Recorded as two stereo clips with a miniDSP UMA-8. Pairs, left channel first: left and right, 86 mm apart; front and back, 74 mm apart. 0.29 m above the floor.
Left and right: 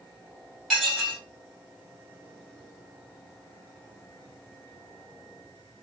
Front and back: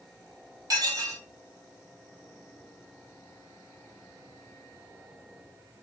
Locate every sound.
0.7 s dishes clattering: straight behind, 1.3 m